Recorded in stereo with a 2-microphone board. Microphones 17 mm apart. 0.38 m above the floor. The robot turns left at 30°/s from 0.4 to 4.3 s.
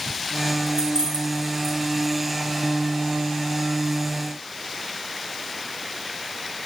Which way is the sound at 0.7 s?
50° right (ahead or behind).